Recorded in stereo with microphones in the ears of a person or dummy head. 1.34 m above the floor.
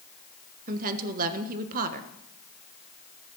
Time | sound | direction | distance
0.7 | a woman speaking | 40° right (ahead or behind) | 1.2 m